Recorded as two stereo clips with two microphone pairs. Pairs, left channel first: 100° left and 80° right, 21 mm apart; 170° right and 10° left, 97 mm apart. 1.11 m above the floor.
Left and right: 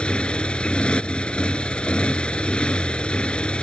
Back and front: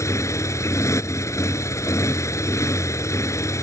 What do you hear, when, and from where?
0.0 s a motorcycle: 135° left